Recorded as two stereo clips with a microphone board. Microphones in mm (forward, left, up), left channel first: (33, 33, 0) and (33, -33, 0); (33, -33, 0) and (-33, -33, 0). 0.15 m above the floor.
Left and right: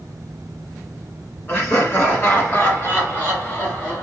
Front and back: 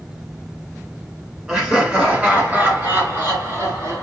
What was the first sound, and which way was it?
Laughter, 105° left.